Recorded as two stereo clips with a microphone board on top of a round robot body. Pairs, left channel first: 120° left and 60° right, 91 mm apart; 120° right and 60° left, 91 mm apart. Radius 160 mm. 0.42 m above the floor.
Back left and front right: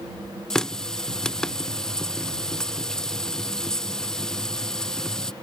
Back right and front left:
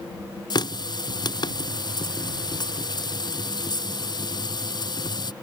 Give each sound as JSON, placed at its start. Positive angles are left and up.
{"t": 0.5, "sound": "a running tap", "azimuth_deg": -160}